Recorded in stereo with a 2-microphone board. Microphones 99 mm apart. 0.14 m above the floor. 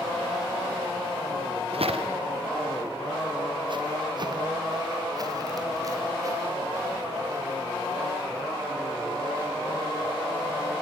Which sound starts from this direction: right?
Footsteps, at 1.7 s.